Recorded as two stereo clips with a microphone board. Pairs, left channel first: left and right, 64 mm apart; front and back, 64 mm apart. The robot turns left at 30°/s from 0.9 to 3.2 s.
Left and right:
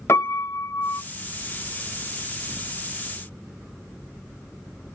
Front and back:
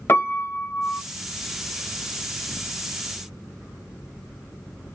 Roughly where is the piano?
Ahead left.